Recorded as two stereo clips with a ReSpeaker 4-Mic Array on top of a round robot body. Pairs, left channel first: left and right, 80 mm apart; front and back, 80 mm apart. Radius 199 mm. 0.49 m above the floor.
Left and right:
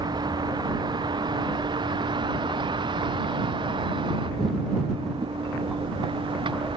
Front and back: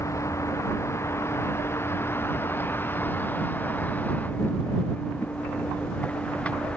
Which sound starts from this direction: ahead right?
A vehicle, at 0.0 s.